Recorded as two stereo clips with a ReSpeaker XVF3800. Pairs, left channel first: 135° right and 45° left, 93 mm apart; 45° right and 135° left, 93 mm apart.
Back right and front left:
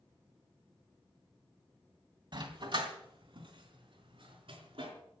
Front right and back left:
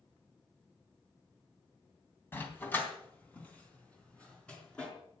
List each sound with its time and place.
2.3 s a dog barking: 20° left, 2.5 m; by 4.9 s 35° left, 4.5 m